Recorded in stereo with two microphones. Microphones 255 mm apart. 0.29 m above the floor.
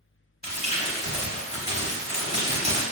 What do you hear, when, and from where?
0.4 s crumpling: 25° left (ahead or behind), 0.8 m